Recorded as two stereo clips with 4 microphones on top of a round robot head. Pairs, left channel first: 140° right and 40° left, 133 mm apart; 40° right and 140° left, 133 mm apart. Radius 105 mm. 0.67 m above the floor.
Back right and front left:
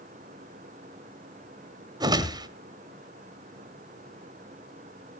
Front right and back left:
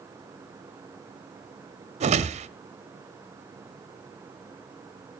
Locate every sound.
2.0 s a whoosh: 100° left, 1.1 m